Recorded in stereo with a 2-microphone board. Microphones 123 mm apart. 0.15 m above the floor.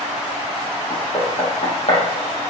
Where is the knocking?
45° left (ahead or behind), 4.5 m.